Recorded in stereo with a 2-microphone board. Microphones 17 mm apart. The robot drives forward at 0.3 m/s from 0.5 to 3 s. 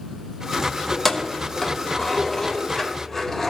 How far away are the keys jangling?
About 0.8 m.